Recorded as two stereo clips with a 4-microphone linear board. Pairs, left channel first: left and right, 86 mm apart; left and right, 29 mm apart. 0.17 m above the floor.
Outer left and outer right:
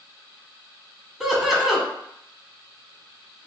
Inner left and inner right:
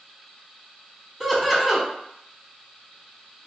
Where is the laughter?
5° right (ahead or behind), 1.0 m.